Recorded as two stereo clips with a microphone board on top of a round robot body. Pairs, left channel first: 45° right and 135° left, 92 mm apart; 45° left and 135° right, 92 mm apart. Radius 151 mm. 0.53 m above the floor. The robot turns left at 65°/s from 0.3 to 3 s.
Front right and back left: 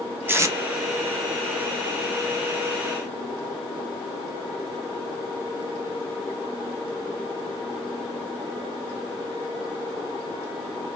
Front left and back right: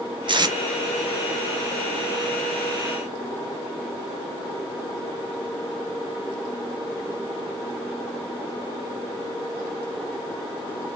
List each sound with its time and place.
0.3 s tape being pulled: 160° right, 0.9 m; by 0.6 s 175° right, 0.9 m